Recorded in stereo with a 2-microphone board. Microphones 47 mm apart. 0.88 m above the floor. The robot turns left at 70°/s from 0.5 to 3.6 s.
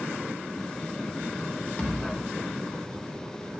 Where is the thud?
25° left (ahead or behind), 1.1 m; by 2.2 s 50° left (ahead or behind), 1.1 m.